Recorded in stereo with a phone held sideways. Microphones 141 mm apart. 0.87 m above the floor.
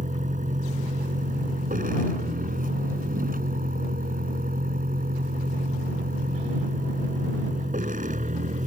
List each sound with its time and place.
0.0 s a vehicle: 65° right (ahead or behind)